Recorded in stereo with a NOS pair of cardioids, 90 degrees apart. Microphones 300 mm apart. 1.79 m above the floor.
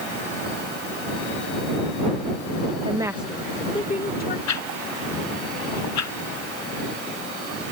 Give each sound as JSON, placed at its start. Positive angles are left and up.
{"t": 2.9, "sound": "a woman speaking", "azimuth_deg": -20}
{"t": 4.5, "sound": "a whoosh", "azimuth_deg": 65}